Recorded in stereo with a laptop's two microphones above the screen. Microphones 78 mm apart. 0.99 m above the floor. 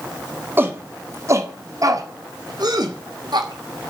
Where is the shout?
25° right (ahead or behind), 1.8 m; by 3.9 s 75° right (ahead or behind), 2.5 m.